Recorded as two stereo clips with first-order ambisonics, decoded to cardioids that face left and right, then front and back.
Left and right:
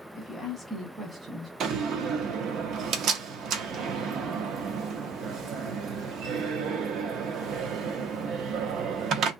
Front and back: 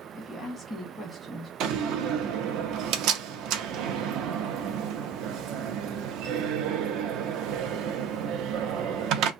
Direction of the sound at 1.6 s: 140° right.